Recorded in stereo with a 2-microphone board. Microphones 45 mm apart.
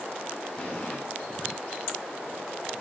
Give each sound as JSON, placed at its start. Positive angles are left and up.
{"t": 0.6, "sound": "an explosion", "side_deg": 15, "distance_m": 7.5}